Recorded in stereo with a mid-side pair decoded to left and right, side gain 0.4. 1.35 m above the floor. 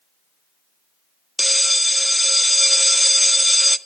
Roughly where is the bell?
Ahead.